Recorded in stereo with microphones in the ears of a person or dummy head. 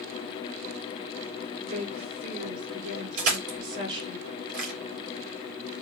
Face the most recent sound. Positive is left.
turn(degrees=-50)  # may be behind; listen again after turning